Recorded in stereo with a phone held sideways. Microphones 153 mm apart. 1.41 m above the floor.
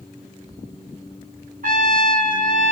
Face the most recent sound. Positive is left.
turn(degrees=-65)  # may be behind; listen again after turning